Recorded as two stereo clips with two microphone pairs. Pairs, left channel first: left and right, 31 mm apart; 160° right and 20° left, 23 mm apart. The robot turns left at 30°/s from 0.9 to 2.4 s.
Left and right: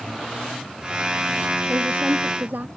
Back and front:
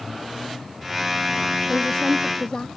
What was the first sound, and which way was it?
A woman speaking, 85° right.